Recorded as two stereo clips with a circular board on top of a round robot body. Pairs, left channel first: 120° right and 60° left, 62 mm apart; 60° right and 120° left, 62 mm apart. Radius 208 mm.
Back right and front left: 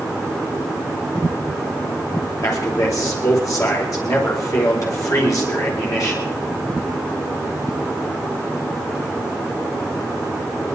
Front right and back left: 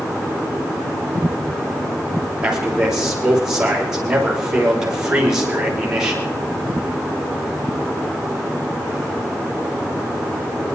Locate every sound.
2.4 s a man speaking: 160° right, 5 m